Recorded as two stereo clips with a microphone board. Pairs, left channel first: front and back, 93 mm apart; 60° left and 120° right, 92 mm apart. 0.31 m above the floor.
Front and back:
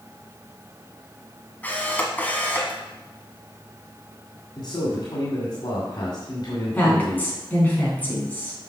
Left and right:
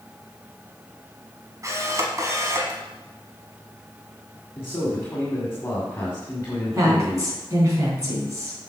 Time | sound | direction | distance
1.6 | a camera shutter | 70° right | 1.4 m
4.6 | a man speaking | 5° left | 1.8 m
6.7 | a woman speaking | 70° right | 3.5 m